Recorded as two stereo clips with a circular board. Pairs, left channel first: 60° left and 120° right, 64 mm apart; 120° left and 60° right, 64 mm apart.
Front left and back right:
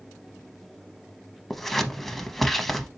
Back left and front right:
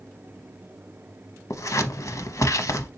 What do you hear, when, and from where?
1.5 s scissors: 145° left, 0.5 m